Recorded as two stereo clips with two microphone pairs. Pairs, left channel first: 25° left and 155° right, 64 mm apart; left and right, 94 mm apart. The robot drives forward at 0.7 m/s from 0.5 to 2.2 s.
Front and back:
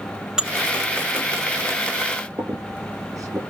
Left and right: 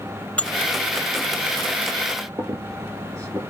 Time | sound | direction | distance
0.4 | dishes clattering | 145° left | 0.6 m
2.4 | a squeak | 140° right | 5 m